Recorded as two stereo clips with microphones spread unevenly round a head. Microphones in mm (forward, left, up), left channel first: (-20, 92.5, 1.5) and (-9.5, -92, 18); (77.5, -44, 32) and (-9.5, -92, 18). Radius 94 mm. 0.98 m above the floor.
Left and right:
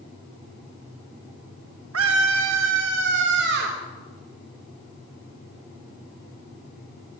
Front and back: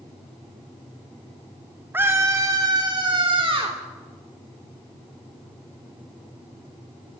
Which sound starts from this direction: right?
A scream, at 1.9 s.